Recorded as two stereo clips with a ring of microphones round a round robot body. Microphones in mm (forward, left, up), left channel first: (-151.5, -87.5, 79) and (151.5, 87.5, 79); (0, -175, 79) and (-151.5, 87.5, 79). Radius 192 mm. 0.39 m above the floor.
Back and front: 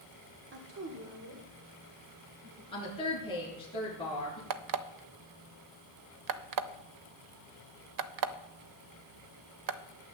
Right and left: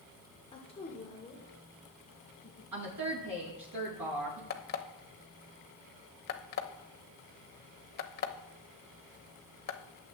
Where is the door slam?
I don't hear a door slam.